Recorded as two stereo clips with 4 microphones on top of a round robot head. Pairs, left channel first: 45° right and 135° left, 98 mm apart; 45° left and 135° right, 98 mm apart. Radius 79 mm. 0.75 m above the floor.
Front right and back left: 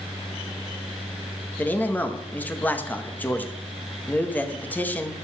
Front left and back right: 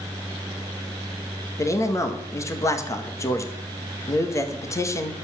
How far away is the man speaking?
About 1.1 m.